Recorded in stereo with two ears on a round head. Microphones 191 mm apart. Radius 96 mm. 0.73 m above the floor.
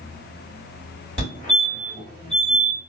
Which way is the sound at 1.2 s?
35° left (ahead or behind).